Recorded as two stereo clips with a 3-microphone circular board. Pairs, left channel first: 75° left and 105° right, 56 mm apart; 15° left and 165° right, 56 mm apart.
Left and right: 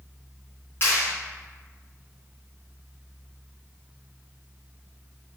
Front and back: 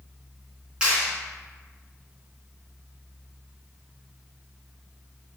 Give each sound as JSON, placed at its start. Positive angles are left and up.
{"t": 0.8, "sound": "a clap", "azimuth_deg": 120, "distance_m": 3.0}